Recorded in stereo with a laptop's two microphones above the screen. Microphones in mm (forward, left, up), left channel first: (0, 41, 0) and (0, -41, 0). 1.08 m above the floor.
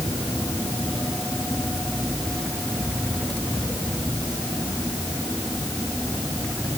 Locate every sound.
Only background noise.